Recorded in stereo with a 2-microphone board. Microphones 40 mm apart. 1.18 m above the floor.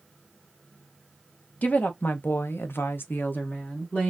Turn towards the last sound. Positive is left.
turn(degrees=35)  # may be behind; listen again after turning